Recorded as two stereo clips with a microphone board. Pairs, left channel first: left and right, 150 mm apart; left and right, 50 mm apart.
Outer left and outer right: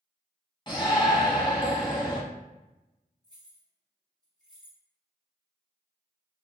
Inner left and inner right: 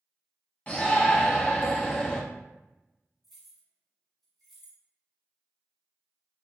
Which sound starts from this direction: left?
A shout, at 0.7 s.